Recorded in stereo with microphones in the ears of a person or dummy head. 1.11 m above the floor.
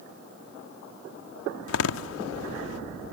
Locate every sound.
1.7 s a door slam: 85° left